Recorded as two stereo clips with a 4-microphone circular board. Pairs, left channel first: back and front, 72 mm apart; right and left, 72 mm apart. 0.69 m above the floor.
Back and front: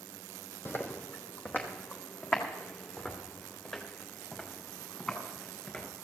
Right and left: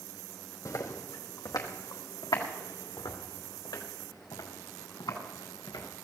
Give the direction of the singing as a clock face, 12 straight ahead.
No singing in this recording.